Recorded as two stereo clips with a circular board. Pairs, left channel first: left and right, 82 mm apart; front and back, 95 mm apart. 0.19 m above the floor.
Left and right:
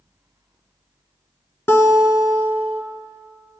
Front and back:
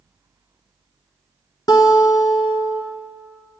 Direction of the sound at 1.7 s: 35° left.